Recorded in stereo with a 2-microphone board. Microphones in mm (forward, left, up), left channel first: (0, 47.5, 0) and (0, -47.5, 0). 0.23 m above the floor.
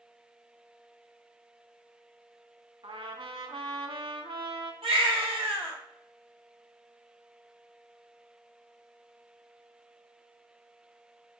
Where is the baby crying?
75° right (ahead or behind), 2 m.